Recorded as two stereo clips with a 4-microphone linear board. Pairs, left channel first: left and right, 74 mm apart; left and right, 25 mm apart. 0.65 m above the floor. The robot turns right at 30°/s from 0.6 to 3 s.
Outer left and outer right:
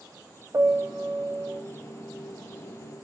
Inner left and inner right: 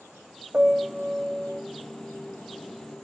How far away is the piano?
About 0.7 m.